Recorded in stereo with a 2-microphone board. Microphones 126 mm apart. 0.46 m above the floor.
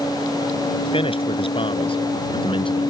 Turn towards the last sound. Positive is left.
turn(degrees=40)  # may be behind; listen again after turning